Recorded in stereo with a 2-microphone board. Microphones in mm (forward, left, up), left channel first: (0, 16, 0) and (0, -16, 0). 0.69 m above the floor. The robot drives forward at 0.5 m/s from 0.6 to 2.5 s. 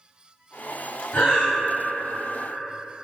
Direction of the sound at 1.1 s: 75° left (ahead or behind).